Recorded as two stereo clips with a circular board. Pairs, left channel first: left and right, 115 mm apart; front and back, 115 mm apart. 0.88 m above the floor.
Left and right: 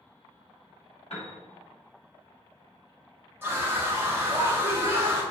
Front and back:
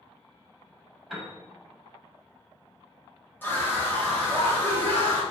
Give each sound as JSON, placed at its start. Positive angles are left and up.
{"t": 1.1, "sound": "a piano", "azimuth_deg": 90, "distance_m": 0.9}
{"t": 3.4, "sound": "a scream", "azimuth_deg": -50, "distance_m": 0.8}